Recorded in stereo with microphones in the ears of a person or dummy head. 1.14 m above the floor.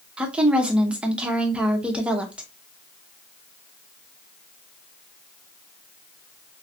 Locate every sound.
0.2 s a woman speaking: 10° right (ahead or behind), 0.7 m